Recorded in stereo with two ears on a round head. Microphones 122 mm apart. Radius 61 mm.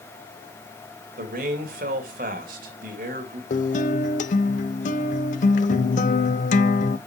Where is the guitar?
60° left (ahead or behind), 0.7 m.